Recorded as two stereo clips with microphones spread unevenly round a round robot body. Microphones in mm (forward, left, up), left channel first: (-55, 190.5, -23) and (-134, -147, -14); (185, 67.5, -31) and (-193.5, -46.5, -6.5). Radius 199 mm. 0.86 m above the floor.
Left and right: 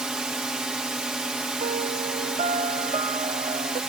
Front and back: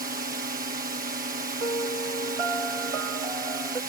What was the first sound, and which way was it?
A drone, 170° left.